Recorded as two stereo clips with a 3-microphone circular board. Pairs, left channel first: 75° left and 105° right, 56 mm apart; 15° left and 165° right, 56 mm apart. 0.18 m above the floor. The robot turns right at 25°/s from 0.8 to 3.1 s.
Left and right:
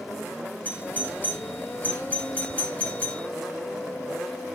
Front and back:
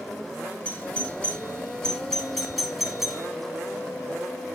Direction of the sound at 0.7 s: 60° left.